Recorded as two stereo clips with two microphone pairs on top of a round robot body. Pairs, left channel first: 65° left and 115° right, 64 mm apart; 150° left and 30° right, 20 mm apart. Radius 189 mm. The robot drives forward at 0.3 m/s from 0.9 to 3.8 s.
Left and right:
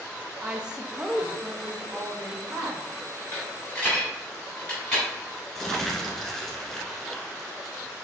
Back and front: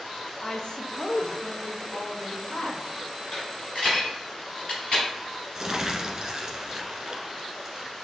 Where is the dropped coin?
130° left, 1.1 m; by 5.0 s 135° left, 1.2 m.